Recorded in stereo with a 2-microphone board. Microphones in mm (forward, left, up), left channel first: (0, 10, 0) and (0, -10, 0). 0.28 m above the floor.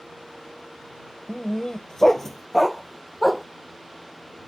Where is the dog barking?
50° left (ahead or behind); by 3.5 s 5° right (ahead or behind).